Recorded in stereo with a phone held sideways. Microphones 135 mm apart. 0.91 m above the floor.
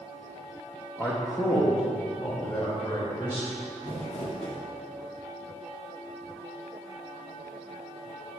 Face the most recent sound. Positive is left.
turn(degrees=60)  # may be behind; listen again after turning